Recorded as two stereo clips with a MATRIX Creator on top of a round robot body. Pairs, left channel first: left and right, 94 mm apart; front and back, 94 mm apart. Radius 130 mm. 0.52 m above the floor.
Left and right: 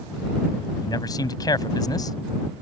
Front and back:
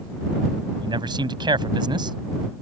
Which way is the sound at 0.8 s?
140° left.